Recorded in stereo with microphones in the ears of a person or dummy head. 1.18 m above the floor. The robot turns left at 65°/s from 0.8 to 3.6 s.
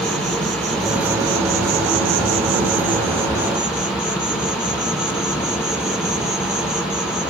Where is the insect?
5° left, 0.9 m; by 7.3 s 175° right, 0.9 m.